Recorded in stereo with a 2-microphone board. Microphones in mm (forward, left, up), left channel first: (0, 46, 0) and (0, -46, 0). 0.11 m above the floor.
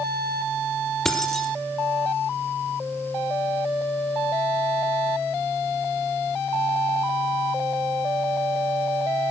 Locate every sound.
1.1 s keys jangling: 5° left (ahead or behind), 2.5 m